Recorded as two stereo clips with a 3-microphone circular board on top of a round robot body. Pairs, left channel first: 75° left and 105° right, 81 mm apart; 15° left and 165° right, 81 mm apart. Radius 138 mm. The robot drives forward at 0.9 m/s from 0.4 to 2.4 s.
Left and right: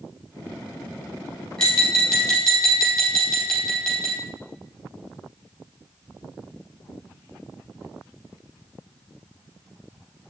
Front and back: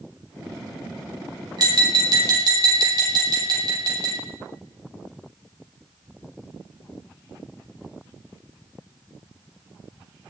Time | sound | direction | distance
1.6 | tapping | 155° left | 4 m